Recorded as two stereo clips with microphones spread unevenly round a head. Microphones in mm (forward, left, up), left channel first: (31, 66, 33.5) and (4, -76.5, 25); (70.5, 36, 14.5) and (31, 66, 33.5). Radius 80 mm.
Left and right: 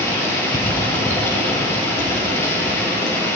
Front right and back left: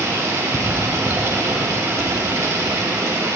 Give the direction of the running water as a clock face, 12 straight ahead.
7 o'clock.